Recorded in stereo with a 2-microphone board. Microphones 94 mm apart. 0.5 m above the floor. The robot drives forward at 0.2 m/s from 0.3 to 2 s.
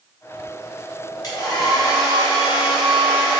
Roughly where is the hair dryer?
Left.